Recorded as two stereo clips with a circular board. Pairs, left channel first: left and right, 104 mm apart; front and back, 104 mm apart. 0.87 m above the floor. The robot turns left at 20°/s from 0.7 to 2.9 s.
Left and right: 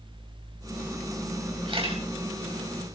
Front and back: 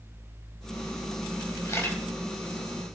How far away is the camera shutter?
About 4.5 m.